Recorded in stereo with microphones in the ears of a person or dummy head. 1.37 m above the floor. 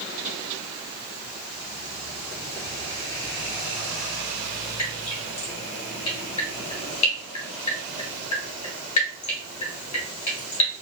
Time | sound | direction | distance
4.8 | dripping | 35° left (ahead or behind) | 1.2 m